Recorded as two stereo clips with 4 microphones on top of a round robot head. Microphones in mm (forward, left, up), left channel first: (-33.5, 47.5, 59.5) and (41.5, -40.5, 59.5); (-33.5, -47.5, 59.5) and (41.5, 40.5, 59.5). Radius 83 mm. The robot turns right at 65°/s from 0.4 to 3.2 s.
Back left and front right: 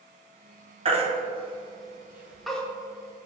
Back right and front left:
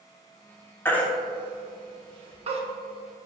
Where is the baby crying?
65° right, 1.2 m; by 2.6 s 50° left, 1.2 m.